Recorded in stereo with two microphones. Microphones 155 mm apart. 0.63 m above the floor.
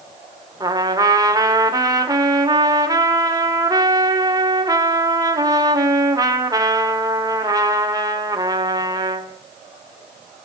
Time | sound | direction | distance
0.6 | a trumpet | 25° right (ahead or behind) | 0.9 m